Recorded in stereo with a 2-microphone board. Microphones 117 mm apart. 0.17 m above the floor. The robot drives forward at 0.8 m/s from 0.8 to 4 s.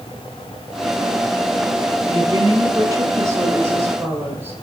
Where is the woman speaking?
30° right (ahead or behind), 1.4 m; by 4.5 s 20° right (ahead or behind), 2 m.